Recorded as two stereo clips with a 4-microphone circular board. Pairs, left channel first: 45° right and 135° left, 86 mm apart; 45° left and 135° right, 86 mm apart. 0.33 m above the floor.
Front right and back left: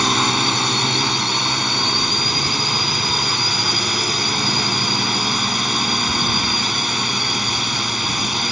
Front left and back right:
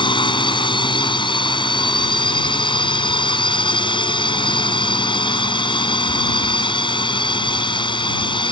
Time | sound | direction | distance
0.0 | a drone | 45° left | ?